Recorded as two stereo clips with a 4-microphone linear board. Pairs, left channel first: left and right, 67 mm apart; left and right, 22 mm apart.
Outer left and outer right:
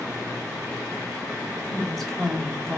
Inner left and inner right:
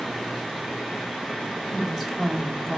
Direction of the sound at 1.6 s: Centre (ahead or behind).